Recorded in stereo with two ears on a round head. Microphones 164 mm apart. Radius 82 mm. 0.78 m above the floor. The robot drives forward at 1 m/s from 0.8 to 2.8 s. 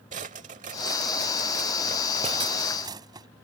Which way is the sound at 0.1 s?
40° right (ahead or behind).